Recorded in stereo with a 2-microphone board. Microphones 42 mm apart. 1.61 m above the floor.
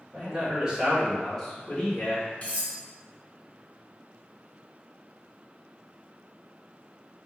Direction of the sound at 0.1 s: 30° right (ahead or behind).